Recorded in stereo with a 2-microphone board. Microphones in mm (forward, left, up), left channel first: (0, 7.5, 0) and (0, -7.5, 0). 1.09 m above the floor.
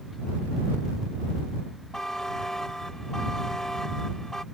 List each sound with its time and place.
1.9 s a buzzer: 40° left (ahead or behind)